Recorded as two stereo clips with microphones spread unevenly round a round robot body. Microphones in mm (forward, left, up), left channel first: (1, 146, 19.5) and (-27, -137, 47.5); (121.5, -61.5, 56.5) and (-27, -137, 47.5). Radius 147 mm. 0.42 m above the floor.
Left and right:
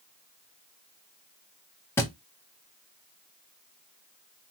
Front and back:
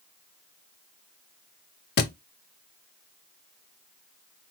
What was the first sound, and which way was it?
A thud, straight ahead.